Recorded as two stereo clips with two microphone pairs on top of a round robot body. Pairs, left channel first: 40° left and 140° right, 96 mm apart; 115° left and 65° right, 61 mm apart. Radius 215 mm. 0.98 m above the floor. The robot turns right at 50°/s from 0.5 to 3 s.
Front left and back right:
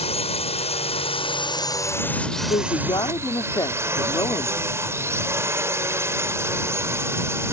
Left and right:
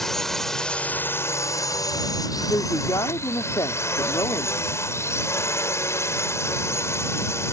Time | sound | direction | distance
0.0 | a drone | 30° left | ?
2.5 | a woman speaking | 65° left | ?